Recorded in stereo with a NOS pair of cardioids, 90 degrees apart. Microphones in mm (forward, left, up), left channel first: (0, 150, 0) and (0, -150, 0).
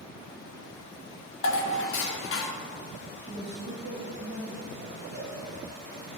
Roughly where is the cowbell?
Ahead right.